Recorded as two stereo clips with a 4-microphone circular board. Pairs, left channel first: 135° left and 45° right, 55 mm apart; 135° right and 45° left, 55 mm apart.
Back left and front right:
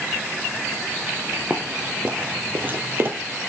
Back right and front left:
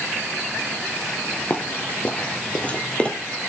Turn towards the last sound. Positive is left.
turn(degrees=-70)